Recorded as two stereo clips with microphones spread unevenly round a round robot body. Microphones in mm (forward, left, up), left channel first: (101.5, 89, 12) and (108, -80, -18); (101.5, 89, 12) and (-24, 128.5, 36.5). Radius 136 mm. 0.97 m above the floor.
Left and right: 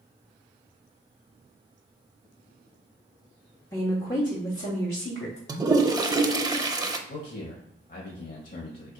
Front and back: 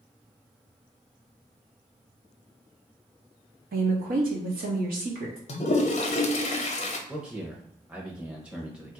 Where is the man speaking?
75° left, 1.0 m.